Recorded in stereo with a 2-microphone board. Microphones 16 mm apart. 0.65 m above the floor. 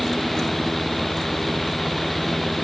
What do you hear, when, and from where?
Only background noise.